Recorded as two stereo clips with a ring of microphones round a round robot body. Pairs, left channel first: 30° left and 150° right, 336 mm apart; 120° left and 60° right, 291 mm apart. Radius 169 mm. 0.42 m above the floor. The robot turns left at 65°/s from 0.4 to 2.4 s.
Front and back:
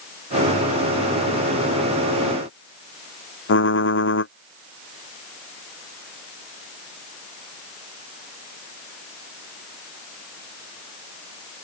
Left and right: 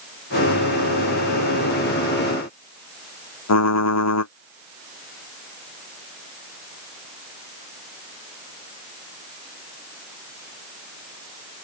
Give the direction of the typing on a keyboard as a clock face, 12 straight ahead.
9 o'clock.